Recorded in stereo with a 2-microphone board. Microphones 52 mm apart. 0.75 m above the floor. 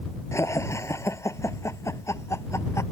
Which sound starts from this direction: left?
Laughter, at 0.3 s.